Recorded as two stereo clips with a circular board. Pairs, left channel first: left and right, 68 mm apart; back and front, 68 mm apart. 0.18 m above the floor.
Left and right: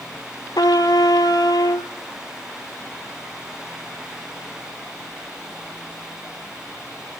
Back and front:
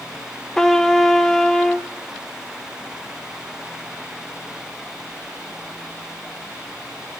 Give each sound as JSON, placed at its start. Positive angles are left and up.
{"t": 0.6, "sound": "a trumpet", "azimuth_deg": 95, "distance_m": 0.8}